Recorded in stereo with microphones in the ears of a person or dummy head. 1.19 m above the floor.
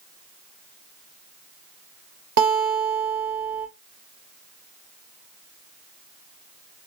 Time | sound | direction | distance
2.4 | a guitar | 55° right (ahead or behind) | 2 m